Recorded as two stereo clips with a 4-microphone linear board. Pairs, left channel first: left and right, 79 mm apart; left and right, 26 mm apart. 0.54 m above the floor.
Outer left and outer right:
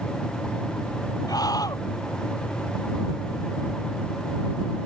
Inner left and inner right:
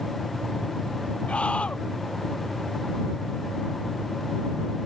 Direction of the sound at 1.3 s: 50° left (ahead or behind).